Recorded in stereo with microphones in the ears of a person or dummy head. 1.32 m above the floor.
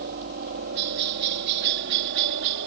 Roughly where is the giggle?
No giggle in this recording.